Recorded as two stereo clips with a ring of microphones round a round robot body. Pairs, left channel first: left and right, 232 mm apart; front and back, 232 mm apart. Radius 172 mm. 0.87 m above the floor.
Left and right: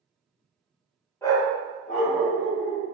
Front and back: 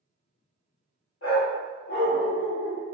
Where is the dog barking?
10° left, 1.0 m; by 2.8 s 45° left, 2 m.